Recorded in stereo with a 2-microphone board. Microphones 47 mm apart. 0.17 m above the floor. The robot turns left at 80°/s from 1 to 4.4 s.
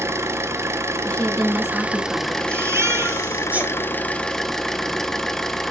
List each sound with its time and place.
0.0 s an engine running: 80° right, 0.9 m; by 5.7 s 10° left, 0.9 m
1.1 s a woman speaking: 40° left, 1.8 m; by 2.4 s 70° right, 1.8 m
2.5 s a baby crying: 65° right, 1.9 m; by 3.7 s 165° right, 1.9 m